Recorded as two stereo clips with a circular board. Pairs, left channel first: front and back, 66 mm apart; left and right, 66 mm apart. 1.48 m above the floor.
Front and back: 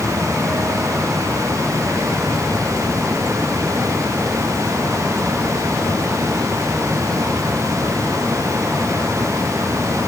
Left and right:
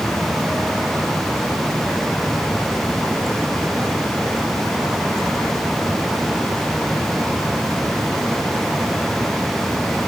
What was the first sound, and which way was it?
Only background noise.